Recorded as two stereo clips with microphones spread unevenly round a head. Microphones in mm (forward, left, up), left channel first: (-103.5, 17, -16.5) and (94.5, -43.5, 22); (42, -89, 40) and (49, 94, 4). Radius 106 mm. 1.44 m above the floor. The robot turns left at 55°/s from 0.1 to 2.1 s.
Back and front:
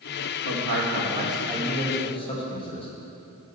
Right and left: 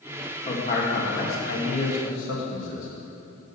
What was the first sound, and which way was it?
A man speaking, 40° right.